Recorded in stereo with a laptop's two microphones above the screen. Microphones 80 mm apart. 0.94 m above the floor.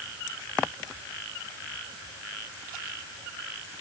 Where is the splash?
No splash in this recording.